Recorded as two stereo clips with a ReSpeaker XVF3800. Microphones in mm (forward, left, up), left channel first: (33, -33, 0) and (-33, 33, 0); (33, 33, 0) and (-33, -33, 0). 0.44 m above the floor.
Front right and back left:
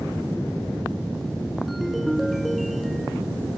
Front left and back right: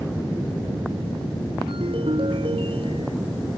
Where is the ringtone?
135° right.